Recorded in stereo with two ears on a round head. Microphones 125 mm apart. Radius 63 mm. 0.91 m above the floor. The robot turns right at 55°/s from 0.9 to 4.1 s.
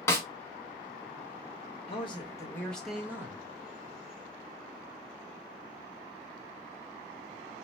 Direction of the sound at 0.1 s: 20° left (ahead or behind).